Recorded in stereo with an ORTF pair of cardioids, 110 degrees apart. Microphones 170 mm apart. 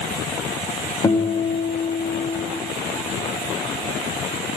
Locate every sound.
1.0 s a guitar: 20° left, 1.0 m